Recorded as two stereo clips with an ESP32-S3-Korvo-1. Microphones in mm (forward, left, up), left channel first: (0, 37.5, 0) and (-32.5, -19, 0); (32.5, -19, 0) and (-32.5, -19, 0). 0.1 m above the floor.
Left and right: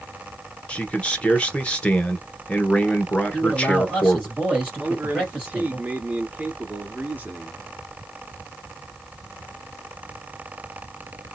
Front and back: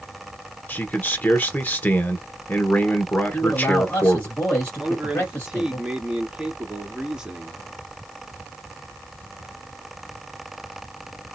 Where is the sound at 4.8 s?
115° right, 1.6 m.